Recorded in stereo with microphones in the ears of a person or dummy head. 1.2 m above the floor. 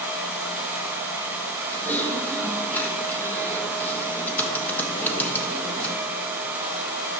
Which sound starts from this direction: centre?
Typing on a keyboard, at 1.7 s.